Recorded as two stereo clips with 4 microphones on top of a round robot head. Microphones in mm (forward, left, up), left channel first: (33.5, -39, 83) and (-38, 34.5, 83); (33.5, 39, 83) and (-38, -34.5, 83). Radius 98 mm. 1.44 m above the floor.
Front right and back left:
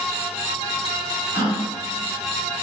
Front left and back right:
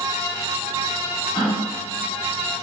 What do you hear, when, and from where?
1.3 s a gasp: straight ahead, 1.3 m